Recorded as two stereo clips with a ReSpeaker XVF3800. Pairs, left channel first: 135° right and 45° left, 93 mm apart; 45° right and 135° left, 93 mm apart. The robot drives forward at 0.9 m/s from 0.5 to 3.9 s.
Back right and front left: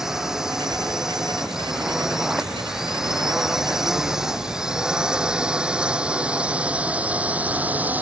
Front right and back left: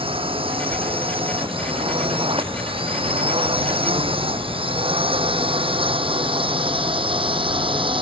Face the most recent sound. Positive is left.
turn(degrees=115)